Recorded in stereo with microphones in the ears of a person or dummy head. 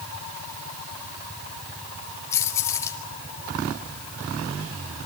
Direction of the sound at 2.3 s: 20° left (ahead or behind).